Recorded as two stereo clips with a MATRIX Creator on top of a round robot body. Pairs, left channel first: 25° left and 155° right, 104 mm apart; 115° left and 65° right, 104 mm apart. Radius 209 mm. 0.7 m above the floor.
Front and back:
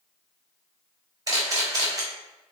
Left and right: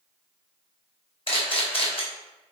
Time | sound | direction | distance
1.3 | a camera shutter | 145° left | 3.5 m